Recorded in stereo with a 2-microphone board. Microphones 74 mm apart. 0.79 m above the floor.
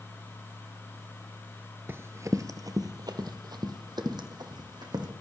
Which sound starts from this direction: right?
Running footsteps, at 1.9 s.